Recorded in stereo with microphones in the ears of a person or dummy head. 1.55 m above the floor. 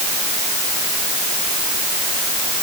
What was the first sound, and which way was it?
Only background noise.